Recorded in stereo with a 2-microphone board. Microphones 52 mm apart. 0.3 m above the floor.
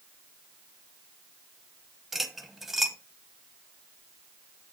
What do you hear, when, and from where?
2.1 s cutlery clinking: 5° right (ahead or behind), 1.0 m